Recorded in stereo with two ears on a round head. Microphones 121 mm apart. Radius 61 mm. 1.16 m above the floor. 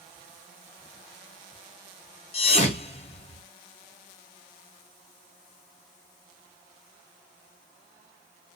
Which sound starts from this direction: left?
A thud, at 2.3 s.